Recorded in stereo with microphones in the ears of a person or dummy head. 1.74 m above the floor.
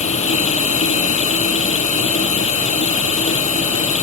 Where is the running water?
30° left (ahead or behind).